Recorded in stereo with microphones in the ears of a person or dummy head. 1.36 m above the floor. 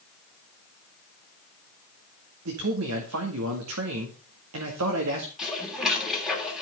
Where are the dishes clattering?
5° right (ahead or behind), 3 m.